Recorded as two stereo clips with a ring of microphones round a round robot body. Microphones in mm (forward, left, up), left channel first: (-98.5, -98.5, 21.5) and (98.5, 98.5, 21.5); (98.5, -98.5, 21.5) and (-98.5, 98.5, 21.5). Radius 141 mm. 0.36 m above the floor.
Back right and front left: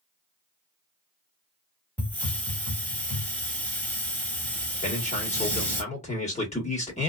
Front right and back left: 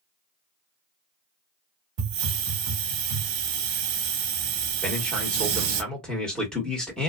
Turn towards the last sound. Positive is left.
turn(degrees=-130)